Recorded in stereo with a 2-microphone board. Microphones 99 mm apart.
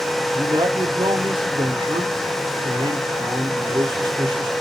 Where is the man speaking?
55° right (ahead or behind), 1.0 m.